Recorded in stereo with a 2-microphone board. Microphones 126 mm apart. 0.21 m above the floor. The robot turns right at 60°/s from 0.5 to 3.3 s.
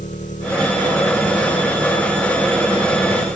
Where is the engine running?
80° left; by 3.4 s 115° right.